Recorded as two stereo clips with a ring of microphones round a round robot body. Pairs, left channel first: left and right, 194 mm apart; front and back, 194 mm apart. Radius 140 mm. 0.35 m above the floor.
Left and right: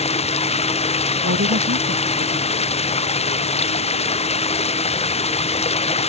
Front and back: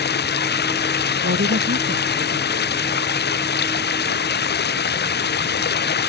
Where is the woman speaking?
130° right.